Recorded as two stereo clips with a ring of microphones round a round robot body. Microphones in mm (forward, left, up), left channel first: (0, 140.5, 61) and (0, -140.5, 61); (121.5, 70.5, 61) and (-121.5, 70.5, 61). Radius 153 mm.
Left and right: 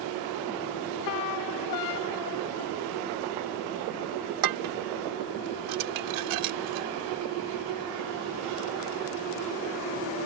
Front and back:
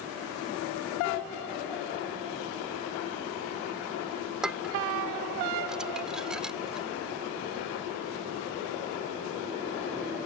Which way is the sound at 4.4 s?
90° right.